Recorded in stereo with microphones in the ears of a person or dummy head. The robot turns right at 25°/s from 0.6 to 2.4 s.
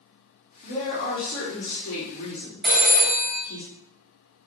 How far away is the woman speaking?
About 1.0 m.